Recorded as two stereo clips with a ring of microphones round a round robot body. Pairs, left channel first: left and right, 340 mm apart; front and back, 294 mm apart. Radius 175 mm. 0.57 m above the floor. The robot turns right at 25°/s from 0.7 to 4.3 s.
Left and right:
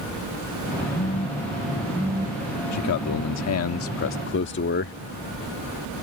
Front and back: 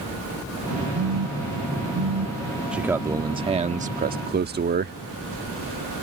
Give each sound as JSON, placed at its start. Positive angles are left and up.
{"t": 0.9, "sound": "a phone buzzing", "azimuth_deg": 160}
{"t": 2.7, "sound": "a man speaking", "azimuth_deg": 95}